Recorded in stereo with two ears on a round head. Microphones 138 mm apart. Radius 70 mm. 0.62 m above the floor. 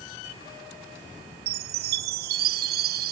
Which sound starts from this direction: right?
A chime, at 1.5 s.